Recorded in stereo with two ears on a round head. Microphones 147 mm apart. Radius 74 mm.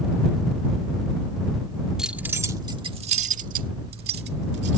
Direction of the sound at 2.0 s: 5° right (ahead or behind).